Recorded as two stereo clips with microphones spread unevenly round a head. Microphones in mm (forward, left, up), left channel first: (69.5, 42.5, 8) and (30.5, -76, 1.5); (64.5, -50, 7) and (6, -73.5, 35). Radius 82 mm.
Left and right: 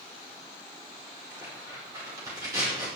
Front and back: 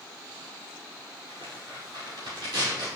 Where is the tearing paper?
Straight behind, 5 m.